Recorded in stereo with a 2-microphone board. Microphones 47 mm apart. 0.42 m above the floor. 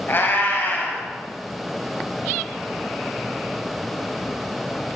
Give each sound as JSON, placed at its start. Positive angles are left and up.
{"t": 0.1, "sound": "a cat meowing", "side_deg": 50, "distance_m": 1.4}